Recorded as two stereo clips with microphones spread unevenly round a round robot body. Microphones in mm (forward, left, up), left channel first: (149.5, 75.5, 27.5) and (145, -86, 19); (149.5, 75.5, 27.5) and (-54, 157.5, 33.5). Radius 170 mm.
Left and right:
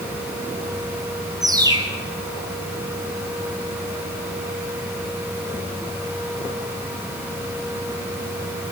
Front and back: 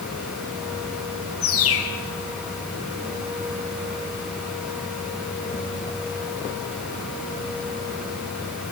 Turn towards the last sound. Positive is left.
turn(degrees=-25)